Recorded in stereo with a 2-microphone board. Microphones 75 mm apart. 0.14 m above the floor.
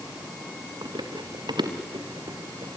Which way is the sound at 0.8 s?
70° right (ahead or behind).